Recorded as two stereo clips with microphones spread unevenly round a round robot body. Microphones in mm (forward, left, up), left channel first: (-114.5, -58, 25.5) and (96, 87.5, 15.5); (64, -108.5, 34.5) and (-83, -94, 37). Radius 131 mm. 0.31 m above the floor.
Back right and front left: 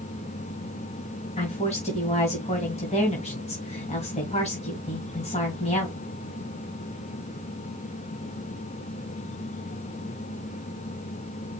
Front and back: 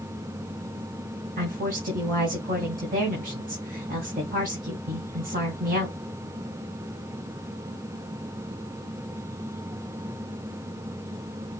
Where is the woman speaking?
150° left, 2 m.